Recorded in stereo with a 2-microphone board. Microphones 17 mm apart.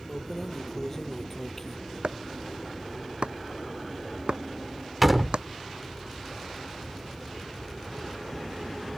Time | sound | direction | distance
0.1 | keys jangling | 20° left (ahead or behind) | ?
2.0 | chopping | 75° right (ahead or behind) | ?
5.0 | a door slam | 10° right (ahead or behind) | ?